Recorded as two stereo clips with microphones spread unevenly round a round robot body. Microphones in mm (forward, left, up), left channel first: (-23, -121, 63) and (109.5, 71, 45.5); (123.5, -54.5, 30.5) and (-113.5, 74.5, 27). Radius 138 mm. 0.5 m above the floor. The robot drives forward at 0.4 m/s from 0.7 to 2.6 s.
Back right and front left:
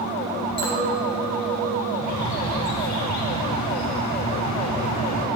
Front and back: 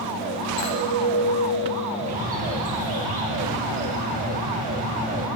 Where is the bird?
145° right, 2.5 m.